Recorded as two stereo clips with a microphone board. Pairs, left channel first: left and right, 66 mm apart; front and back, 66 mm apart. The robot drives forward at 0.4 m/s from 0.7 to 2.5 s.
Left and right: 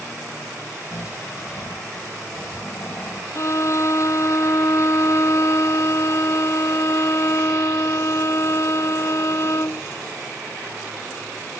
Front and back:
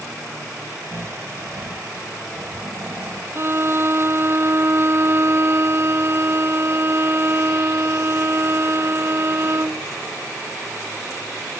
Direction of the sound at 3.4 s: 130° left.